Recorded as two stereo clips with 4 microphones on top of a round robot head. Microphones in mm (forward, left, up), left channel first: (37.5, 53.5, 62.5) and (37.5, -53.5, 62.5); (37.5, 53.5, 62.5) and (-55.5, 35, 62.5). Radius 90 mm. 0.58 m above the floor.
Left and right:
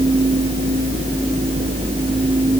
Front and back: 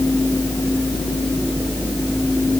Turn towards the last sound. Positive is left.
No sound to turn to.